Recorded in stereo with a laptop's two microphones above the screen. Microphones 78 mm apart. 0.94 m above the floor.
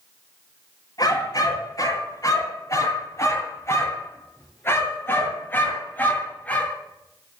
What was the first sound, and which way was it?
A dog barking, 50° left (ahead or behind).